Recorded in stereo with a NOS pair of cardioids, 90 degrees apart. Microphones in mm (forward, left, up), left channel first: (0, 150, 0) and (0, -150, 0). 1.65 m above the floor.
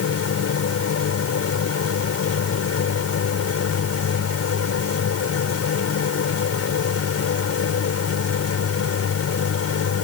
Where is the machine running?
55° left.